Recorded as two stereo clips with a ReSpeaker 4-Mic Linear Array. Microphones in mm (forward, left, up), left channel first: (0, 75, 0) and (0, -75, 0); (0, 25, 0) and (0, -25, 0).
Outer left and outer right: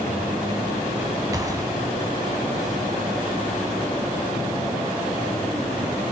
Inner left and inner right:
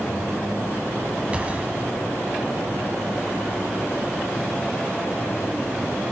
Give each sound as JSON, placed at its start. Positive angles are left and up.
{"t": 1.3, "sound": "a gunshot", "side_deg": -25, "distance_m": 2.5}